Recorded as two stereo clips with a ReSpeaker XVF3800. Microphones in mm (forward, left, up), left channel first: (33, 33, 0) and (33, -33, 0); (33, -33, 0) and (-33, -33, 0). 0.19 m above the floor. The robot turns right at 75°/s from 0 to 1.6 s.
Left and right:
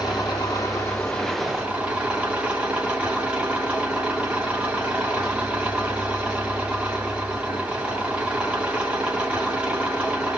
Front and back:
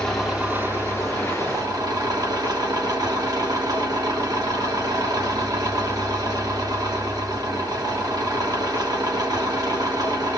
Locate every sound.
0.0 s an engine running: 75° left, 7 m; by 10.4 s 165° right, 7 m